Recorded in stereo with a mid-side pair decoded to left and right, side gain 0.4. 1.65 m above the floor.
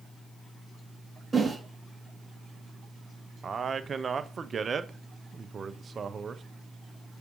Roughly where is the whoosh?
Ahead.